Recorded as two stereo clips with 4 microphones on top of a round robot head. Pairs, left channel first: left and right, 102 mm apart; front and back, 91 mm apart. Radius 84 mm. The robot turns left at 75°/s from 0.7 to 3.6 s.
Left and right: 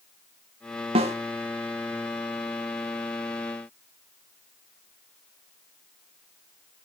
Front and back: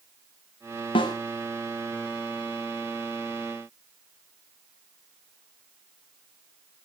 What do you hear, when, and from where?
0.9 s a snare drum: 45° right, 1.2 m; by 1.1 s 60° right, 1.2 m